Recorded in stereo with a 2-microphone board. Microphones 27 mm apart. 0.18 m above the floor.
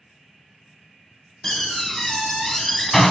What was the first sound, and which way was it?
A door slam, 15° left (ahead or behind).